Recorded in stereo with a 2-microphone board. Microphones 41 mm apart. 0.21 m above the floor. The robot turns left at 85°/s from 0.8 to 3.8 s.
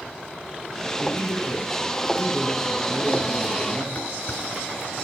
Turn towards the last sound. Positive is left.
turn(degrees=35)  # may be behind; listen again after turning